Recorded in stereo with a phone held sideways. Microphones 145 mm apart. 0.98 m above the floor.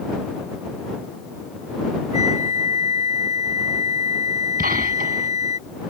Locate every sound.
2.1 s a flute: 55° left (ahead or behind)
4.6 s a gunshot: 85° right